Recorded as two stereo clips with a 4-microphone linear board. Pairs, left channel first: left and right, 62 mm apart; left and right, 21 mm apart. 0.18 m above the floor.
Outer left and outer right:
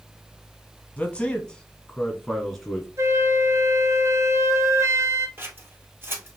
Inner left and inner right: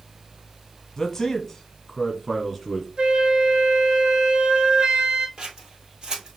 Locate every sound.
1.0 s a man speaking: 20° left (ahead or behind), 1.0 m; by 2.9 s centre (ahead or behind), 2 m
3.0 s a flute: 50° right (ahead or behind), 0.7 m
5.4 s scissors: 40° right (ahead or behind), 1.3 m